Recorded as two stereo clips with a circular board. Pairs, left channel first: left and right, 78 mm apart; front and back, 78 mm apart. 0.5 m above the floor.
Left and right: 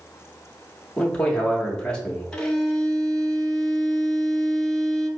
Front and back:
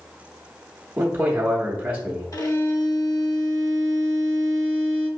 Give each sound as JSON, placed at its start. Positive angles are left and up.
{"t": 1.0, "sound": "a man speaking", "azimuth_deg": 150, "distance_m": 0.7}
{"t": 2.3, "sound": "a violin", "azimuth_deg": 10, "distance_m": 0.6}